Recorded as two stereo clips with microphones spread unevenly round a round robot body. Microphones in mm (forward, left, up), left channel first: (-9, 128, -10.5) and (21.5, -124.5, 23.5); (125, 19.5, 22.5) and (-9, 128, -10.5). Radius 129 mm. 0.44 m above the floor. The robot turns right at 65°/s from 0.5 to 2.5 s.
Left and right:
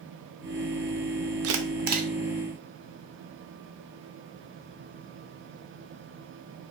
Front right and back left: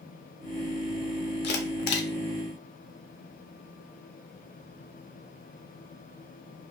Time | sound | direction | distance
1.4 | a camera shutter | 60° right | 0.5 m